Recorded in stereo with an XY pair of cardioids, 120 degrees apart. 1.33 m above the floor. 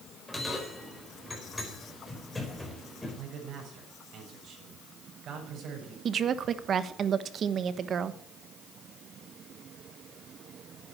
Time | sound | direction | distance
0.3 | a bell | 10° left | 5 m
3.2 | a man speaking | 55° right | 6.5 m
6.0 | a woman speaking | 45° right | 1.1 m